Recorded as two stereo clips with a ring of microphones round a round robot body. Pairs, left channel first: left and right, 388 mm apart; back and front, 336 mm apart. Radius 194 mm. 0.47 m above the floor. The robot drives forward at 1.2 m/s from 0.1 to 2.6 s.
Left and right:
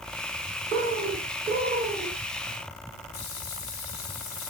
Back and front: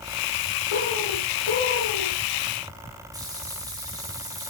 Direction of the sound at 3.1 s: 80° left.